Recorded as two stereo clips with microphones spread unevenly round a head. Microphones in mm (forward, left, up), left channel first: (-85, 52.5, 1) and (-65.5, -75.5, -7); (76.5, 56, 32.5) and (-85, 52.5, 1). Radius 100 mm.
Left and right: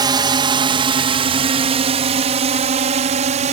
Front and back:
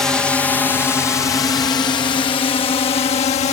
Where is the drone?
100° right; by 3.5 s 55° right.